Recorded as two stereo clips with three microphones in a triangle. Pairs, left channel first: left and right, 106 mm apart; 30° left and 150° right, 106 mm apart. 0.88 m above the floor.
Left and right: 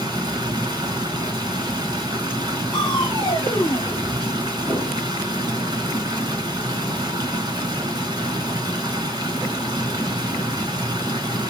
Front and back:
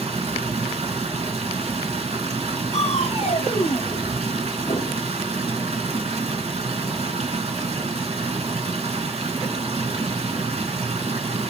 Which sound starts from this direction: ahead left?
Crushing, at 2.7 s.